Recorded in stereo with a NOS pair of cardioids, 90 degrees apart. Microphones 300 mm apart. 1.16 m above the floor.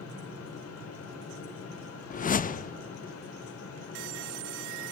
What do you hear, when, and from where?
0.0 s a fan: 50° left, 3 m
2.1 s a whoosh: 30° left, 0.6 m